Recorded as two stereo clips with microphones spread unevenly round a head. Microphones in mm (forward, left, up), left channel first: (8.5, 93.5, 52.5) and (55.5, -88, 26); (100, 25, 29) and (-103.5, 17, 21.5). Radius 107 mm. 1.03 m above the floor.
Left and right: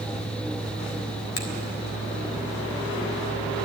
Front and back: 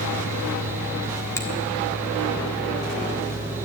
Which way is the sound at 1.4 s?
80° left.